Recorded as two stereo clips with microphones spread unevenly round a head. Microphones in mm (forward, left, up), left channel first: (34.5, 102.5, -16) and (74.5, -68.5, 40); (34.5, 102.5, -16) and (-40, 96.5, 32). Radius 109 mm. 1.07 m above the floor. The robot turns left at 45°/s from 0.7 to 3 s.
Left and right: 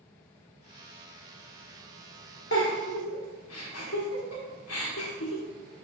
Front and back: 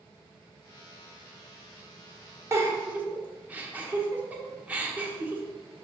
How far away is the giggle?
About 1.3 m.